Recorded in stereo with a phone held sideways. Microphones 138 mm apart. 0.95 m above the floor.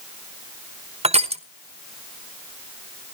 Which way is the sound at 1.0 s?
45° right (ahead or behind).